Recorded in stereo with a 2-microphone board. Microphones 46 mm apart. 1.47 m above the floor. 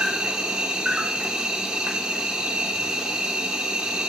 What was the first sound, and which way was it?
An insect, 15° right (ahead or behind).